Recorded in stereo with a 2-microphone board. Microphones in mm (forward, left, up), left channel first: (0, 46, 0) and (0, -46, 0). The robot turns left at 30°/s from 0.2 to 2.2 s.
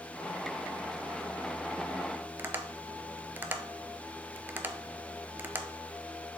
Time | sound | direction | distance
2.4 | tapping | 25° right (ahead or behind) | 0.5 m